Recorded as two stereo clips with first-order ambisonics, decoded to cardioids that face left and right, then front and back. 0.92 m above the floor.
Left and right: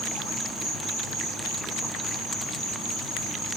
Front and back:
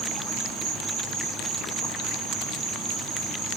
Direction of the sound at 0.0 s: 165° left.